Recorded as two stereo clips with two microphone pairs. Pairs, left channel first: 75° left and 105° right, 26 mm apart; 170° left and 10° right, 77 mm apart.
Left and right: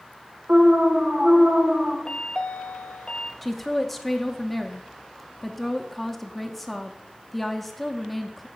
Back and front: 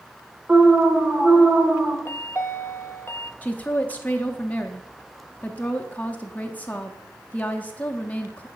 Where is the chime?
115° left, 0.6 m.